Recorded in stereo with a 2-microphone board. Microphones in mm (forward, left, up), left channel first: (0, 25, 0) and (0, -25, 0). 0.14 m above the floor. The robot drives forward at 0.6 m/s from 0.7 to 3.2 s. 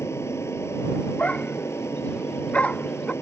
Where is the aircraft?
60° left (ahead or behind).